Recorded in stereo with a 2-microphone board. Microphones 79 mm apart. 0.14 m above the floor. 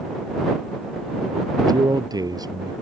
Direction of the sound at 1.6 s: 55° right (ahead or behind).